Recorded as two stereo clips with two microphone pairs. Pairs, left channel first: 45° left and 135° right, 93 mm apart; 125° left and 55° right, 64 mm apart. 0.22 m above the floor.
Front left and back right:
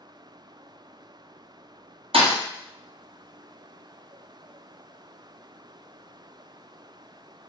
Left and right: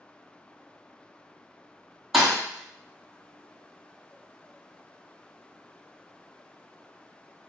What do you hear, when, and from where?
2.1 s a thud: 140° right, 0.8 m